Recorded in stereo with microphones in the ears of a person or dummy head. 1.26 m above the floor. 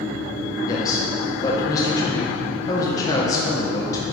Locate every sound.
0.7 s a man speaking: 20° left (ahead or behind), 0.8 m